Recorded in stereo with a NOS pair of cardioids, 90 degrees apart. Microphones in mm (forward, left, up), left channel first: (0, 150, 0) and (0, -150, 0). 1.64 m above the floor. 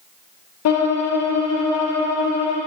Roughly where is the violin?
Ahead left.